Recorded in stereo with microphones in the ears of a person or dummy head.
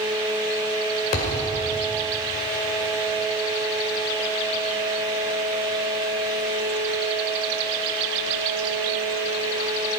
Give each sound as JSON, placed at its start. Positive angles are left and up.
{"t": 1.1, "sound": "a thud", "side_deg": 45, "distance_m": 2.0}